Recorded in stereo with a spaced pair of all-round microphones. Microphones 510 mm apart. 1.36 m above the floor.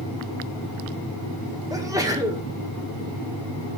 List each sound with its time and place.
1.7 s a sneeze: 5° right (ahead or behind), 1.8 m